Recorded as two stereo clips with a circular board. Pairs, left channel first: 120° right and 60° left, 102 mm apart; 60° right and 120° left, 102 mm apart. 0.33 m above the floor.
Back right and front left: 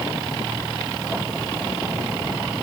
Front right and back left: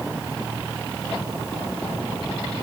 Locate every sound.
Only background noise.